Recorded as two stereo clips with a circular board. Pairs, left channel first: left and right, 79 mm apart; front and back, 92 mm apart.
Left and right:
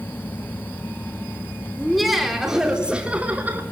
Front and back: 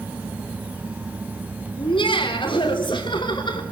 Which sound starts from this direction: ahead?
Laughter, at 1.8 s.